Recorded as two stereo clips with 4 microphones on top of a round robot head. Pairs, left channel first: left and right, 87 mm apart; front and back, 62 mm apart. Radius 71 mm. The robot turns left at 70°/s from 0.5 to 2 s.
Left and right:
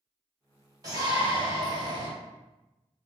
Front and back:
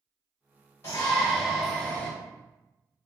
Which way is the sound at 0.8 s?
50° right.